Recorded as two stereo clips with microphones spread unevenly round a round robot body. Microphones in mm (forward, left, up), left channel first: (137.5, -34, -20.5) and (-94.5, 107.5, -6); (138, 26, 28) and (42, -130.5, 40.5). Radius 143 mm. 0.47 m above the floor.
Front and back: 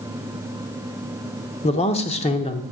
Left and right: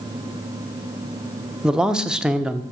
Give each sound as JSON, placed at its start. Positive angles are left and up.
{"t": 1.6, "sound": "a man speaking", "azimuth_deg": -30, "distance_m": 0.8}